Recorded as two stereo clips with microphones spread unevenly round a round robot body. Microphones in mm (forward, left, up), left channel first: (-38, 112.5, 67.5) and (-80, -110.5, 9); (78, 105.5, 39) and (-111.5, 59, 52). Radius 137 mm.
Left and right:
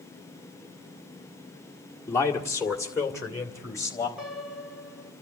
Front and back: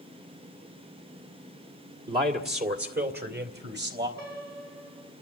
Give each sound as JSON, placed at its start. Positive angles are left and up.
{"t": 2.1, "sound": "a man speaking", "azimuth_deg": 165, "distance_m": 1.7}
{"t": 4.2, "sound": "a piano", "azimuth_deg": -175, "distance_m": 2.0}